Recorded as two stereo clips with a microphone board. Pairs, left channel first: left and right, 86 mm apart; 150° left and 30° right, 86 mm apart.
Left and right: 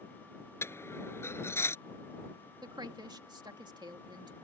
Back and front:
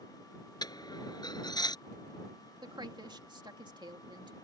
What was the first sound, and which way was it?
A dropped coin, 145° left.